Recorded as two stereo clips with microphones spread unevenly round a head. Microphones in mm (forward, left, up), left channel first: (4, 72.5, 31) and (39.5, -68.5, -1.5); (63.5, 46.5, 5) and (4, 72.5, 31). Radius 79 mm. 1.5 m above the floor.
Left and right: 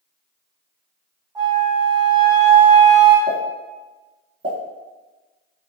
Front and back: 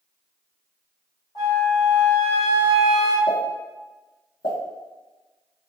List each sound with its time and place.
1.4 s a flute: 10° right, 1.2 m
3.3 s a pop: 25° right, 1.1 m